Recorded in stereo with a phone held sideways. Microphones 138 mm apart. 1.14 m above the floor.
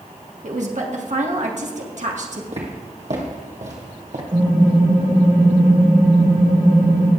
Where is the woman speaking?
60° right (ahead or behind), 1.7 m.